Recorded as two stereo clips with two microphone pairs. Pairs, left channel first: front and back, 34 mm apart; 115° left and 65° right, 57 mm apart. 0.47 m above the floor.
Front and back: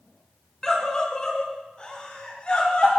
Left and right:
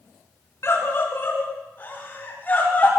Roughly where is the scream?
Left.